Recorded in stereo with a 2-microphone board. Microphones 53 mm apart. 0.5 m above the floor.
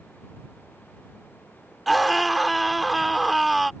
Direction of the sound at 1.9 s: Centre (ahead or behind).